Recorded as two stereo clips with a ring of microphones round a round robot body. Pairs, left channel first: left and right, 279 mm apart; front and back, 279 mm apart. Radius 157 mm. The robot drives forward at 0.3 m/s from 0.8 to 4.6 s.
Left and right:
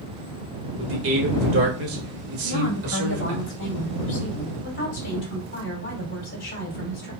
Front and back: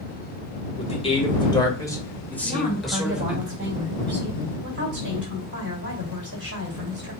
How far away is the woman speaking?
About 2 m.